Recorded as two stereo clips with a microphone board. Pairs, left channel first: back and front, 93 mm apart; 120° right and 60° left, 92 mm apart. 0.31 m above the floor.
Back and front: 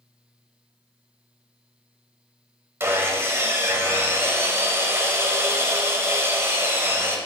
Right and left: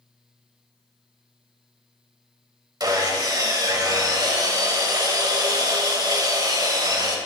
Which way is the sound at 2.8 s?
50° left.